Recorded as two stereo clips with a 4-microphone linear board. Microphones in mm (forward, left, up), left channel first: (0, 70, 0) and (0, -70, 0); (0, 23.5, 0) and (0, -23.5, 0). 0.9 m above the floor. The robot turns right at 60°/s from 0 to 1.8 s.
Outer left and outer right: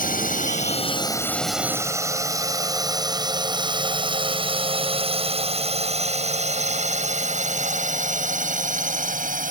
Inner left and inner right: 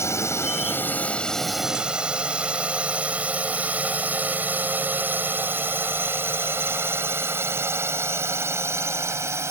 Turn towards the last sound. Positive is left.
turn(degrees=-70)  # may be behind; listen again after turning